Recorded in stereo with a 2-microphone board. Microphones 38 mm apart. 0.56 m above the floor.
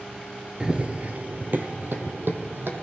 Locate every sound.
0.6 s running footsteps: 20° right (ahead or behind), 0.5 m; by 2.8 s 70° right (ahead or behind), 1.5 m